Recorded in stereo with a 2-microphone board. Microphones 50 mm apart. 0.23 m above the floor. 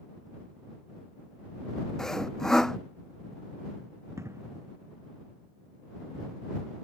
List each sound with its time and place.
2.0 s sawing: 10° left (ahead or behind)
4.2 s an explosion: 65° right (ahead or behind)